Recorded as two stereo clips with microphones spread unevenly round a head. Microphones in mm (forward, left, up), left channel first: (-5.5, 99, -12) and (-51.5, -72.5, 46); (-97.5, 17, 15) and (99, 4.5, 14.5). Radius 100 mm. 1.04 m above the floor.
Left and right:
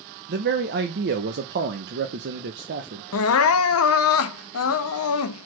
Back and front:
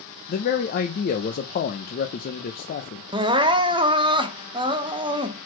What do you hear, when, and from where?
0.3 s a man speaking: 140° right, 0.8 m
3.1 s crying: 65° left, 0.7 m